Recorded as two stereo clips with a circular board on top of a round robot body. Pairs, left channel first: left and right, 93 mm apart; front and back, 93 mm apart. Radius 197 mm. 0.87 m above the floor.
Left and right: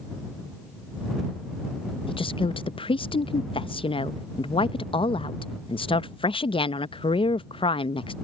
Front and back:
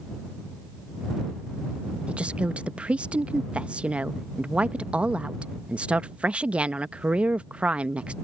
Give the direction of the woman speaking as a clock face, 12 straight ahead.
9 o'clock.